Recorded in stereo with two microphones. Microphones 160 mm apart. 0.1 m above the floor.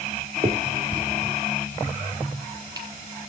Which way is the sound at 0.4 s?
25° right (ahead or behind).